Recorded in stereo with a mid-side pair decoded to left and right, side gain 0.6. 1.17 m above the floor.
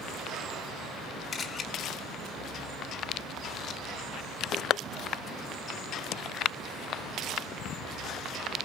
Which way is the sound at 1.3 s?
35° left.